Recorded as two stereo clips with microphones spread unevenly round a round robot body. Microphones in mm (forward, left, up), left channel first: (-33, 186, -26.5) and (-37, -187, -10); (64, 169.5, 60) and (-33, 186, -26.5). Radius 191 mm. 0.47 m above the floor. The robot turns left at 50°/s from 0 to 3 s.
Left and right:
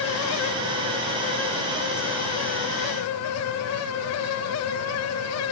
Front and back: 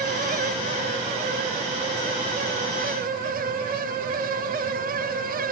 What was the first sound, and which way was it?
Only background noise.